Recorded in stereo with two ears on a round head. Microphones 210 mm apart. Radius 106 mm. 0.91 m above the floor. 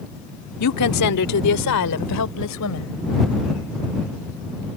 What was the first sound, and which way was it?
A woman speaking, 80° left.